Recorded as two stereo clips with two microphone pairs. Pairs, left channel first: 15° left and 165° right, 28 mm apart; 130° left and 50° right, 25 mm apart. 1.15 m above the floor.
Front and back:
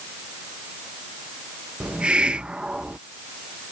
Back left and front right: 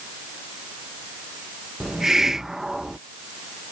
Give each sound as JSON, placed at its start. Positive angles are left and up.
{"t": 1.8, "sound": "a hiss", "azimuth_deg": -115}